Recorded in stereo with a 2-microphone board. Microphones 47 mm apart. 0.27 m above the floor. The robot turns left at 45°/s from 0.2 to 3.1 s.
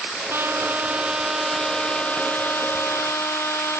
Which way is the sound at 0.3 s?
125° right.